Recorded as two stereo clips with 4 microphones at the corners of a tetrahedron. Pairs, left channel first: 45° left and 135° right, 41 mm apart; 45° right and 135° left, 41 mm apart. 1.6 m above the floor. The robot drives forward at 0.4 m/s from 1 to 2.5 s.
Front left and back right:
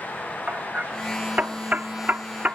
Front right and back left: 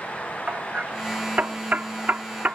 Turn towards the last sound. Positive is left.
turn(degrees=180)